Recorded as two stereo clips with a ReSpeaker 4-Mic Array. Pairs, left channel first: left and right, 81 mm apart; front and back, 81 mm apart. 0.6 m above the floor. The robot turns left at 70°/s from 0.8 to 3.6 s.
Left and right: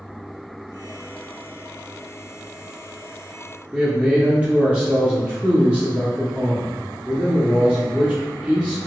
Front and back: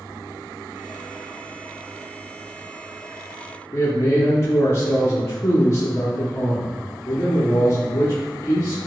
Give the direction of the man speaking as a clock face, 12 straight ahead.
1 o'clock.